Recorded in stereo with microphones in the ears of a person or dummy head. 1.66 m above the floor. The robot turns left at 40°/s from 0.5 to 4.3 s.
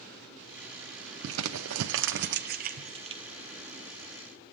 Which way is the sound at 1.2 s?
75° right (ahead or behind).